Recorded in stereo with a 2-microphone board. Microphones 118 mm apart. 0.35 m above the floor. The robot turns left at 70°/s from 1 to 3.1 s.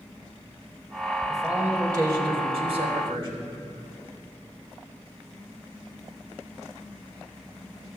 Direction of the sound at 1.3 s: 5° left.